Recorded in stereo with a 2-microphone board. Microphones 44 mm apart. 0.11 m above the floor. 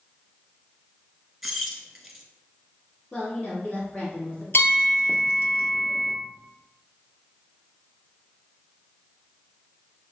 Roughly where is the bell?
Left.